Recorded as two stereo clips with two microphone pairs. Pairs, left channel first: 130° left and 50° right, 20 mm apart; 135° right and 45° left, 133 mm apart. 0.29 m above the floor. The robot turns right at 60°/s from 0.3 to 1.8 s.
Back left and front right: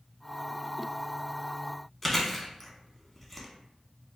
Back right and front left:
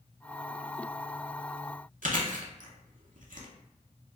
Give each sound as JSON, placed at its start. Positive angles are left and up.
{"t": 2.0, "sound": "chewing", "azimuth_deg": 50, "distance_m": 0.6}